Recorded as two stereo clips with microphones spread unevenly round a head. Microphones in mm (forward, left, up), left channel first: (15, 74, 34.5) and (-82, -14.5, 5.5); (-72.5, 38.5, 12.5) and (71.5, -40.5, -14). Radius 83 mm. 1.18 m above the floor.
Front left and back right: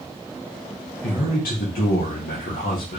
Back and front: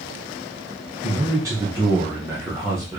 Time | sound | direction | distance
1.0 | a man speaking | 35° left | 1.3 m